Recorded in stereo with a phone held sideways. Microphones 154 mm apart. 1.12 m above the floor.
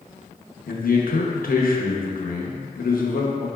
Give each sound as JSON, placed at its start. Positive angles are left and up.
{"t": 0.7, "sound": "a man speaking", "side_deg": 70, "distance_m": 0.7}